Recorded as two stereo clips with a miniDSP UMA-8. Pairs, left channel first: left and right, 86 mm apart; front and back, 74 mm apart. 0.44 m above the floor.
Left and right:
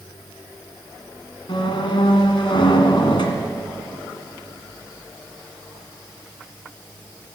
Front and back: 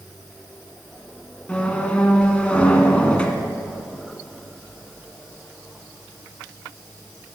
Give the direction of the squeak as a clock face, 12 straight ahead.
10 o'clock.